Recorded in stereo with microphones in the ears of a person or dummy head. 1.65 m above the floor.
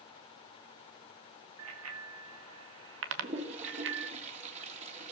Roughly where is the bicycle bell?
Right.